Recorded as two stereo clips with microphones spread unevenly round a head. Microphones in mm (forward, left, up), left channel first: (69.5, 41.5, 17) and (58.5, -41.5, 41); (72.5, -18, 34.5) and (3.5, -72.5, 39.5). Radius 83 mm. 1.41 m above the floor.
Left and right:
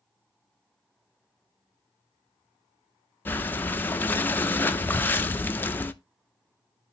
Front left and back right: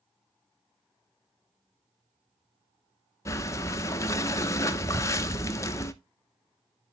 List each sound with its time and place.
3.2 s breathing: 5° left, 0.6 m